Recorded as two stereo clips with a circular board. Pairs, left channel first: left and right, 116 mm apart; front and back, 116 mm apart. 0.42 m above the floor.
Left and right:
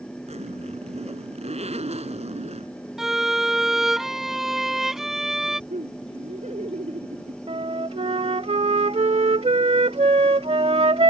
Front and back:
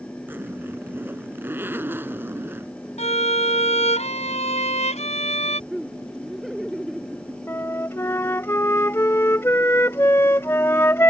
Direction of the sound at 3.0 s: 5° right.